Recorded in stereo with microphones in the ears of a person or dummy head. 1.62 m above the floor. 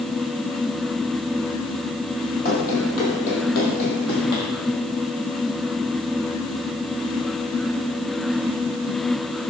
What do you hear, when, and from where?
2.5 s running footsteps: 45° left (ahead or behind), 2.5 m; by 4.5 s 55° left (ahead or behind), 3 m